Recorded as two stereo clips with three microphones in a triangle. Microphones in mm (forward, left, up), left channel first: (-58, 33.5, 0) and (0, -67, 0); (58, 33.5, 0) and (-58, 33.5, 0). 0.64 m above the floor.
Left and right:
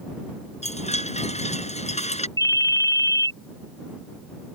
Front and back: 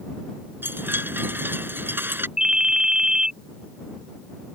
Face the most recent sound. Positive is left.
turn(degrees=100)